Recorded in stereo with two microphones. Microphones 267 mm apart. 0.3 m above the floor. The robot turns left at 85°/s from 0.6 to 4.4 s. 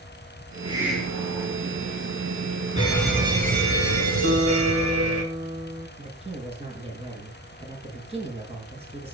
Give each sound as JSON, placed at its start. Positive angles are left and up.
{"t": 0.7, "sound": "a hiss", "azimuth_deg": -155, "distance_m": 4.5}
{"t": 2.8, "sound": "a fire alarm", "azimuth_deg": 25, "distance_m": 5.5}
{"t": 4.2, "sound": "a guitar", "side_deg": -45, "distance_m": 2.5}
{"t": 6.0, "sound": "a man speaking", "side_deg": -20, "distance_m": 6.0}